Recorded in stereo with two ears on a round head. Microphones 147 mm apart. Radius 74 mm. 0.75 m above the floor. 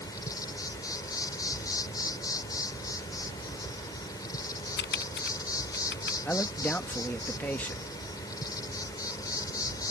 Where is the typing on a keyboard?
80° left.